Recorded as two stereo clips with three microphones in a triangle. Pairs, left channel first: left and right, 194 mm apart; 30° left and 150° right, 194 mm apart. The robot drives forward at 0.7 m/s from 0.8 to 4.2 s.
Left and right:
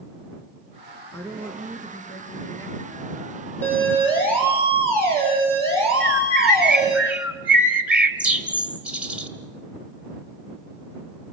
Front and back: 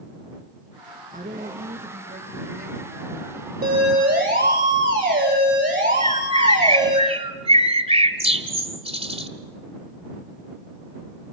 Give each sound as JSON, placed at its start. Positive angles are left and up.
{"t": 1.1, "sound": "a woman speaking", "azimuth_deg": 165, "distance_m": 3.0}
{"t": 3.6, "sound": "a siren", "azimuth_deg": 170, "distance_m": 8.0}
{"t": 6.0, "sound": "a bird", "azimuth_deg": -170, "distance_m": 1.3}